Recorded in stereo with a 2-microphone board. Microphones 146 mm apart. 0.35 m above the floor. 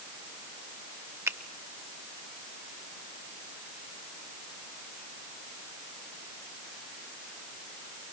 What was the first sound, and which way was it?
A finger snap, 15° right (ahead or behind).